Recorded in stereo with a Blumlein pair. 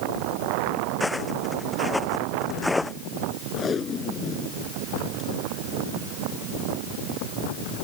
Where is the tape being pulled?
20° left.